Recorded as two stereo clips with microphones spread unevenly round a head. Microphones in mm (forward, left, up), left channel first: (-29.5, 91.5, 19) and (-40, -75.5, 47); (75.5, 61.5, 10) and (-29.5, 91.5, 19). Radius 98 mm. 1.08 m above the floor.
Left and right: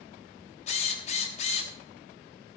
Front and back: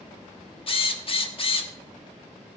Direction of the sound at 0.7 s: 25° left.